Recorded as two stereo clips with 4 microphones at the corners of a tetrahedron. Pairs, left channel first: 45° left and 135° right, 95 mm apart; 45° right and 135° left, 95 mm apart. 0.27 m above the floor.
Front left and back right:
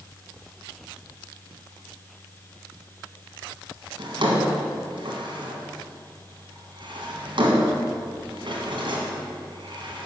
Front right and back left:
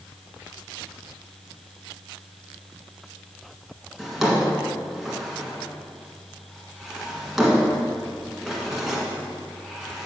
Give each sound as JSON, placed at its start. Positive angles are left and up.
{"t": 4.0, "sound": "a drawer", "azimuth_deg": -140, "distance_m": 1.8}